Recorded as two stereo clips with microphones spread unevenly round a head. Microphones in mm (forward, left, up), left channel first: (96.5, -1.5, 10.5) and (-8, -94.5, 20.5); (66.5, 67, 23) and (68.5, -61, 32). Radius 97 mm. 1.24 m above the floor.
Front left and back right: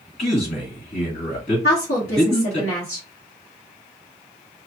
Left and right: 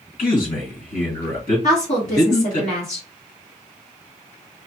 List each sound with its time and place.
0.2 s a man speaking: 85° left, 2 m
1.6 s a woman speaking: 70° left, 1.6 m